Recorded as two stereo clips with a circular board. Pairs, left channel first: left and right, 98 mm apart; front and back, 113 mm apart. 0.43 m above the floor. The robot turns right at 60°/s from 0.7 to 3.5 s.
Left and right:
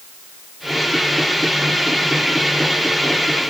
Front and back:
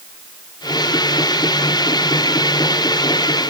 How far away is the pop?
I don't hear a pop.